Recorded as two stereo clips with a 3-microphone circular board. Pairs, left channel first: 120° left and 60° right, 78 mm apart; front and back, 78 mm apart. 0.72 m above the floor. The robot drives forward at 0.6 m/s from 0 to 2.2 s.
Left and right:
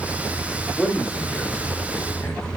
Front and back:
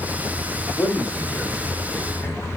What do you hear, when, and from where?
0.8 s a man speaking: 40° left, 1.9 m; by 2.5 s 65° left, 1.4 m